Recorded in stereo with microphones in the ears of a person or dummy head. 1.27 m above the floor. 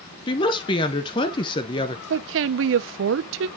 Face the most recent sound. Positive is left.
turn(degrees=-70)  # may be behind; listen again after turning